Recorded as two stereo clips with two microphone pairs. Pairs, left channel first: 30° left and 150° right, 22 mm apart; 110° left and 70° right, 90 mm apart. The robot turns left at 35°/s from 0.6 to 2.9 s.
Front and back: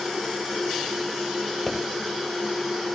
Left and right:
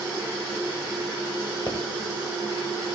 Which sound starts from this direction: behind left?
A pop, at 1.7 s.